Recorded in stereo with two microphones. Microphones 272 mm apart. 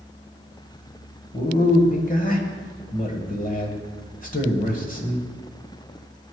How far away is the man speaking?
About 1.3 m.